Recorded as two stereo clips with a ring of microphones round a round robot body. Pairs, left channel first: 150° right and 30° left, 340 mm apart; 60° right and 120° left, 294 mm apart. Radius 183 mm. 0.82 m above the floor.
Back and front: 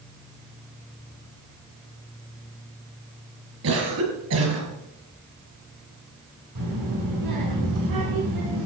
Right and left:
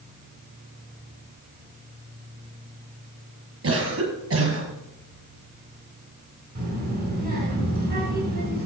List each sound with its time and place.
3.6 s a cough: 75° left, 6 m
6.5 s a child speaking: 65° left, 8 m